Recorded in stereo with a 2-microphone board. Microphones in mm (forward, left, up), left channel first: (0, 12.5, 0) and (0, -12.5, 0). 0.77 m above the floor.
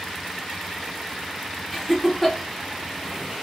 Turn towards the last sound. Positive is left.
turn(degrees=10)  # may be behind; listen again after turning